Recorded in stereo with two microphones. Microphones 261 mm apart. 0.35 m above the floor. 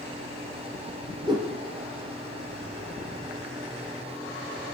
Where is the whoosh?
15° right (ahead or behind), 4.5 m.